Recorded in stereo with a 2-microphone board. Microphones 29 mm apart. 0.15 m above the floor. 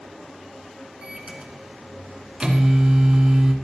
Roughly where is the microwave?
Right.